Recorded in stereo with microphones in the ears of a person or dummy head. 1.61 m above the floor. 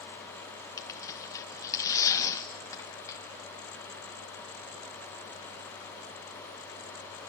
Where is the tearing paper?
20° left (ahead or behind), 1.0 m.